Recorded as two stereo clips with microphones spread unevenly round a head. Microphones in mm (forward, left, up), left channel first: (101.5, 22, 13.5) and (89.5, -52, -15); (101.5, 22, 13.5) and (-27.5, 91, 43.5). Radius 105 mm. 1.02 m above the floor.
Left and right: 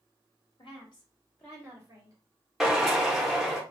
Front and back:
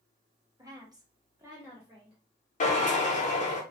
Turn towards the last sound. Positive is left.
turn(degrees=5)